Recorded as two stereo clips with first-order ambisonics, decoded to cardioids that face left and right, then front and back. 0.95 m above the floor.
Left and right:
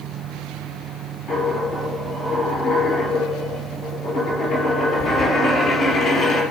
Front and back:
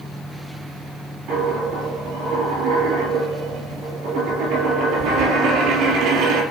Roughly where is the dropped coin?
Behind left.